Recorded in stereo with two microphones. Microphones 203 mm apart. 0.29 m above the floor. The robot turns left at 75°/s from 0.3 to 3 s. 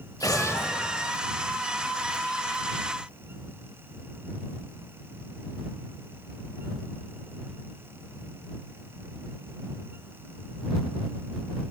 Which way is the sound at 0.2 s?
15° left (ahead or behind).